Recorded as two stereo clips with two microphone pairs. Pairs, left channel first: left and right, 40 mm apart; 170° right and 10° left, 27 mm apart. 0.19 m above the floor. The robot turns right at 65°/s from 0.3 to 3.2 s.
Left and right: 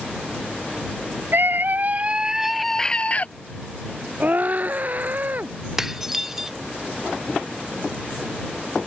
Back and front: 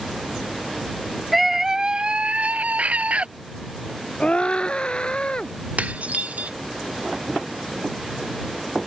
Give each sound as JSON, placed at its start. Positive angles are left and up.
{"t": 1.3, "sound": "a scream", "azimuth_deg": -80}
{"t": 4.2, "sound": "a scream", "azimuth_deg": -125}
{"t": 5.8, "sound": "dishes clattering", "azimuth_deg": -10}